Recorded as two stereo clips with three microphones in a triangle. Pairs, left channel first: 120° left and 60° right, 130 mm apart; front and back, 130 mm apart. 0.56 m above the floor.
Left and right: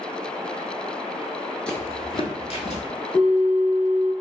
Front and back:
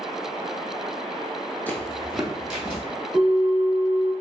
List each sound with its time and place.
1.7 s footsteps: 50° left, 0.5 m; by 2.8 s 100° left, 1.1 m
3.1 s a bell: 140° left, 1.2 m